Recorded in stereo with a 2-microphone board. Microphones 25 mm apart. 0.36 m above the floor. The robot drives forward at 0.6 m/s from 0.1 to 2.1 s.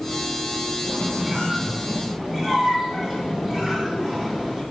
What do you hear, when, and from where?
0.8 s a squeak: 10° right (ahead or behind), 2.5 m; by 4.6 s 15° right (ahead or behind), 1.6 m